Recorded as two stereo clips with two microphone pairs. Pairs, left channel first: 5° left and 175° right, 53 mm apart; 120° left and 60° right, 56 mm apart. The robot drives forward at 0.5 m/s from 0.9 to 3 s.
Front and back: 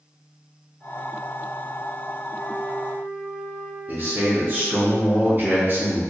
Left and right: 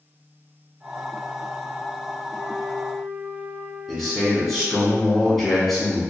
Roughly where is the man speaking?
Behind right.